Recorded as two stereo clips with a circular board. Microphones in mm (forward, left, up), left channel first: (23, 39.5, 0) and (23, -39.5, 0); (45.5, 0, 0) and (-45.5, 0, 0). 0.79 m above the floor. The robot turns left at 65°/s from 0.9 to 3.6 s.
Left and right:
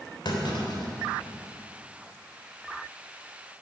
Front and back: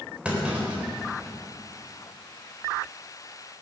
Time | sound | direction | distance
0.2 | a clunk | 100° left | 3.5 m